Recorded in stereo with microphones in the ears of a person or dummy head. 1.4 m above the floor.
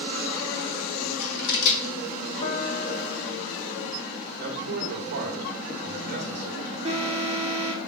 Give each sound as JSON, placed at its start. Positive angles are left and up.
{"t": 1.0, "sound": "scissors", "side_deg": 75, "distance_m": 1.5}
{"t": 2.4, "sound": "a piano", "side_deg": 35, "distance_m": 1.2}
{"t": 4.4, "sound": "a man speaking", "side_deg": -50, "distance_m": 1.5}
{"t": 6.8, "sound": "an alarm", "side_deg": -30, "distance_m": 1.3}